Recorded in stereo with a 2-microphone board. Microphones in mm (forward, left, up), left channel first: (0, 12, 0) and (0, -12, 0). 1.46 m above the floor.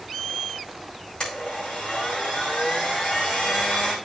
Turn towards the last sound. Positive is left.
turn(degrees=45)  # may be behind; listen again after turning